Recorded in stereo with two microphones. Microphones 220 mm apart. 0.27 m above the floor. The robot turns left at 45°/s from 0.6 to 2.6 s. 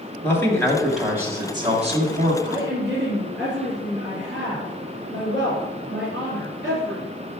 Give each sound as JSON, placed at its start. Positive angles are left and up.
{"t": 0.2, "sound": "a man speaking", "azimuth_deg": 15, "distance_m": 1.6}
{"t": 2.4, "sound": "a woman speaking", "side_deg": -65, "distance_m": 3.0}